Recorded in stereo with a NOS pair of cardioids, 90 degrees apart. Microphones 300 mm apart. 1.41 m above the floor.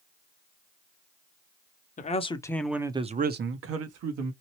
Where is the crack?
No crack in this recording.